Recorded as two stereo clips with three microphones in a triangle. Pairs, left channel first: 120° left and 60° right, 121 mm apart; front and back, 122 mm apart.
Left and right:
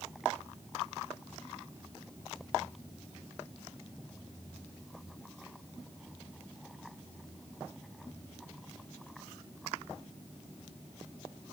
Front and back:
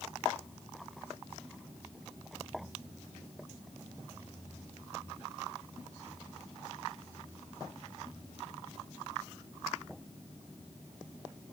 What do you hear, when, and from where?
Only background noise.